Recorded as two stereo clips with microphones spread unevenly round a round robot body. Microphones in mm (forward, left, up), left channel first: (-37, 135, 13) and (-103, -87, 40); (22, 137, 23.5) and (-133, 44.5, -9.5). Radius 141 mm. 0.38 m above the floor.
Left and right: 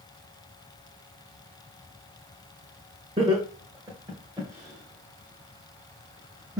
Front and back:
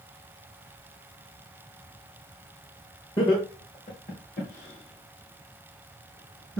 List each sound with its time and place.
3.2 s laughter: 40° right, 1.5 m; by 6.6 s 20° right, 3 m